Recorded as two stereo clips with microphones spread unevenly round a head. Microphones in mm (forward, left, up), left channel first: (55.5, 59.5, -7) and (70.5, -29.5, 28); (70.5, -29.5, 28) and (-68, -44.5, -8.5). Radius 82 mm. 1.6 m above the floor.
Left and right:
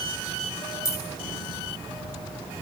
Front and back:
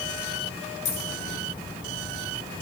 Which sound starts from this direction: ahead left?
Keys jangling, at 0.8 s.